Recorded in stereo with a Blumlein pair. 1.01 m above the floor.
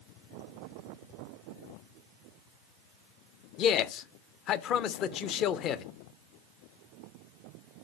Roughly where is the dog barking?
No dog barking in this recording.